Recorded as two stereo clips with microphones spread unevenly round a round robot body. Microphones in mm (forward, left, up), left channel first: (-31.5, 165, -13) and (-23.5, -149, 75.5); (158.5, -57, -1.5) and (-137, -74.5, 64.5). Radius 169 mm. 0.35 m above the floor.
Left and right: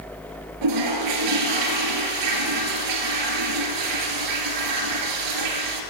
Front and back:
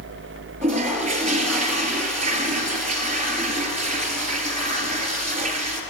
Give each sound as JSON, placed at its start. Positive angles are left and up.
{"t": 0.6, "sound": "a toilet flushing", "azimuth_deg": -115, "distance_m": 2.0}